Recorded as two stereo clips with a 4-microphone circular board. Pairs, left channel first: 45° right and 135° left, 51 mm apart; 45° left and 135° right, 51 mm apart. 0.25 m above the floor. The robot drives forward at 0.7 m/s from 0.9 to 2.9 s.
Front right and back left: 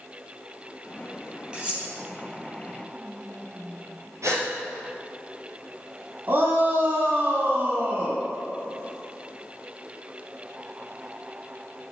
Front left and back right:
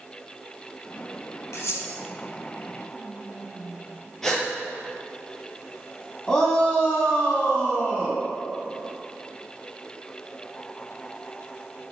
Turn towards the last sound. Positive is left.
turn(degrees=115)